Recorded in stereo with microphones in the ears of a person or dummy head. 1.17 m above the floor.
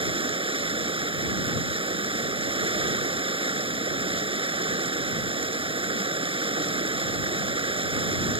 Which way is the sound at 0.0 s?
30° right (ahead or behind).